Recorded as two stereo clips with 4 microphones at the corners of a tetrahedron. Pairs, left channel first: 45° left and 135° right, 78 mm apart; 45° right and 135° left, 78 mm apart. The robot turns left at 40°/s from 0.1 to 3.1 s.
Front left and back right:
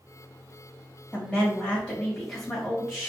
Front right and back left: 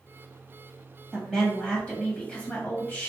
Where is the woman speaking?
30° left, 1.3 m; by 3.1 s 50° right, 1.3 m.